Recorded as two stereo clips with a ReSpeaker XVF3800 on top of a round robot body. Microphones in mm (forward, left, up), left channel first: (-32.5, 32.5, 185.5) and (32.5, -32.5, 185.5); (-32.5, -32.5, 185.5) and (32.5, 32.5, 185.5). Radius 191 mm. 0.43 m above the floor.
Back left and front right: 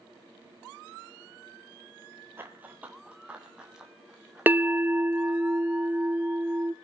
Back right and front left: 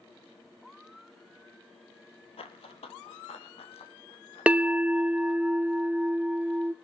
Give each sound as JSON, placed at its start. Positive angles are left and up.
{"t": 2.4, "sound": "running footsteps", "azimuth_deg": -115, "distance_m": 0.7}
{"t": 4.5, "sound": "a bell", "azimuth_deg": -10, "distance_m": 0.7}